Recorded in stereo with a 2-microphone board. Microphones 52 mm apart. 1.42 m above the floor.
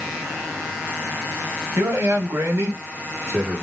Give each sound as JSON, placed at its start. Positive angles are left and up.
{"t": 1.8, "sound": "a man speaking", "side_deg": -60, "distance_m": 1.0}